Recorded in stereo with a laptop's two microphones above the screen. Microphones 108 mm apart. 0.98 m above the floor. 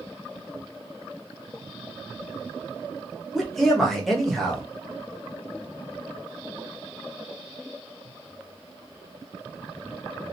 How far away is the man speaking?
About 0.9 m.